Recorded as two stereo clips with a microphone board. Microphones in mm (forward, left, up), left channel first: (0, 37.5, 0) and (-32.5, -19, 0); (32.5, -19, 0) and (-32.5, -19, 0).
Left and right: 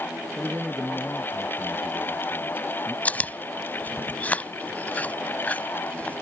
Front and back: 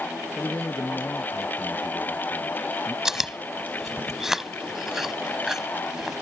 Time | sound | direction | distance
0.4 | a man speaking | 50° right | ?
3.0 | chewing | 100° left | ?